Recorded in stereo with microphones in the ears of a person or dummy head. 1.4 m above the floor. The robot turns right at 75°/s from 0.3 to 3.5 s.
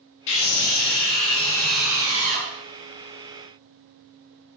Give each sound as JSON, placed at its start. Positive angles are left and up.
{"t": 0.3, "sound": "a scream", "azimuth_deg": 70, "distance_m": 1.2}